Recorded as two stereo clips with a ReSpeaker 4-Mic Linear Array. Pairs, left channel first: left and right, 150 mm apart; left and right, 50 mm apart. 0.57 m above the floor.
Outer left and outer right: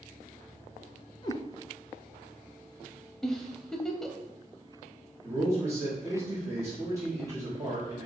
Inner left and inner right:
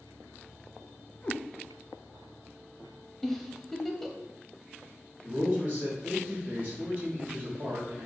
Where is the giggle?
5° left (ahead or behind), 0.5 m.